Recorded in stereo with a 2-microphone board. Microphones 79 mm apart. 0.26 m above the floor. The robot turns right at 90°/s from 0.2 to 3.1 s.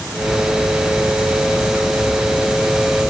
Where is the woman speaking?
I don't hear a woman speaking.